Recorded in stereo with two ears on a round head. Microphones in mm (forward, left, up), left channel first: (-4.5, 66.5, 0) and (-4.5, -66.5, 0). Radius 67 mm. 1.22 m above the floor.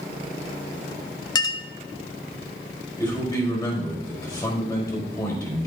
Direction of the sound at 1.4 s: 25° left (ahead or behind).